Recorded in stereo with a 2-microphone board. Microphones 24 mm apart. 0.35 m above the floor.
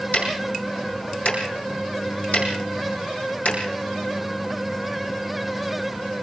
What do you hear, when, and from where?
0.1 s ticking: 90° left, 5 m